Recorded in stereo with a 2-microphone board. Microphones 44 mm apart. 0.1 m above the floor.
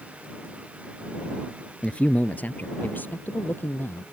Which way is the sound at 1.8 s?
25° left (ahead or behind).